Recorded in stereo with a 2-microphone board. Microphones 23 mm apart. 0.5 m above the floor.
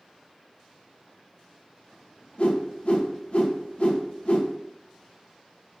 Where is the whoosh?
55° left (ahead or behind), 0.5 m.